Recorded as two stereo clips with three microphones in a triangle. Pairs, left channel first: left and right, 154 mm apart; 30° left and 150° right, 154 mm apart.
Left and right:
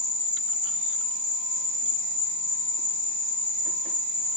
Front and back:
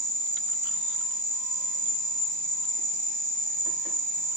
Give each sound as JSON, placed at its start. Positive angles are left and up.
{"t": 0.0, "sound": "an insect", "azimuth_deg": -15, "distance_m": 1.1}